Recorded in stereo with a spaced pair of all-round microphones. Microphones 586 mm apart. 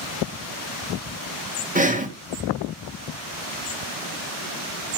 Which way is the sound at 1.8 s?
15° right (ahead or behind).